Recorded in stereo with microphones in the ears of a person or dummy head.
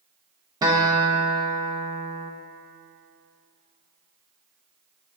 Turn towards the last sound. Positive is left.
turn(degrees=-15)  # may be behind; listen again after turning